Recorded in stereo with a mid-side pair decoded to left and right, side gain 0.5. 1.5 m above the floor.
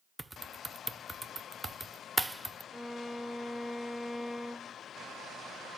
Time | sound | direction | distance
0.2 | typing on a keyboard | 10° right | 0.8 m
2.7 | a violin | straight ahead | 0.8 m